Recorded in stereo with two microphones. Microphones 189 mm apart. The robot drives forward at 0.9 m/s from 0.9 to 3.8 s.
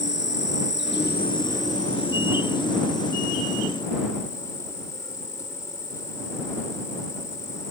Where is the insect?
60° left (ahead or behind); by 7.7 s 15° left (ahead or behind).